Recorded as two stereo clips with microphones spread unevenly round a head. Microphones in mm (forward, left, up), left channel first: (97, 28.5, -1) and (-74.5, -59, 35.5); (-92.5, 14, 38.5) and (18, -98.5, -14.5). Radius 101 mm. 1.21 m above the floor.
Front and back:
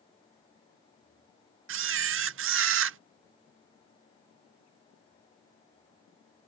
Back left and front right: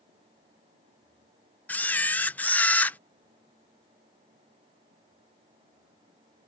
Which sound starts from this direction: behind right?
A camera shutter, at 1.7 s.